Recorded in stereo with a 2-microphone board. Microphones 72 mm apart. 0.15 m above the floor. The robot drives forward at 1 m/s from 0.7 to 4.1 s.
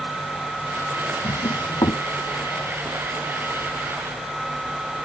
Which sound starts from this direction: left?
A drawer, at 1.2 s.